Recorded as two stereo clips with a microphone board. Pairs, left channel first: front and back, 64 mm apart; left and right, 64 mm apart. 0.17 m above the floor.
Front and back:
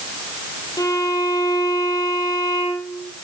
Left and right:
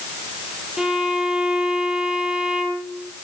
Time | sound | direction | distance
0.8 | a violin | 10° right | 3.5 m